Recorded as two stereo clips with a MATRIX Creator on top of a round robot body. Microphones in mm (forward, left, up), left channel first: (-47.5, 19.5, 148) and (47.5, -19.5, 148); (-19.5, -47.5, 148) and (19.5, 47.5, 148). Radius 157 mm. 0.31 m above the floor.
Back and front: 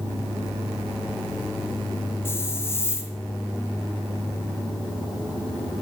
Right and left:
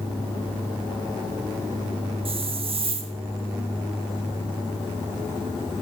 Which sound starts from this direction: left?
A hiss, at 2.2 s.